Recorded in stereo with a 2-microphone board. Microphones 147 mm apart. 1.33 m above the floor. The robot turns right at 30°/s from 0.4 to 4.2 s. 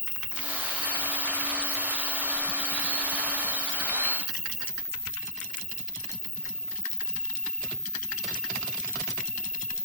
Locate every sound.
0.0 s an insect: 5° left, 1.9 m; by 9.9 s 120° left, 1.9 m